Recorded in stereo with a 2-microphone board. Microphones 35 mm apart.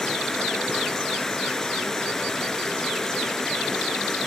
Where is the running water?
10° left (ahead or behind), 2.5 m.